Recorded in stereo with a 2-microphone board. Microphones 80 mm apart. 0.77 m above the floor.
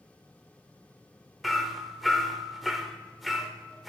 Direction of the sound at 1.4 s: Centre (ahead or behind).